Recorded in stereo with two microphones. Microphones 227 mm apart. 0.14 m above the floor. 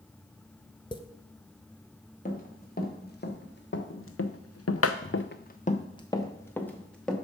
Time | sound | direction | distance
0.9 | tapping | 20° left (ahead or behind) | 0.7 m
2.2 | running footsteps | 35° left (ahead or behind) | 2.5 m